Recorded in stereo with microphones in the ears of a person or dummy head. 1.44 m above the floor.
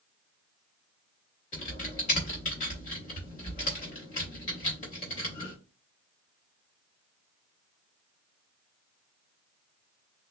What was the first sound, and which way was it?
Typing on a keyboard, 30° left (ahead or behind).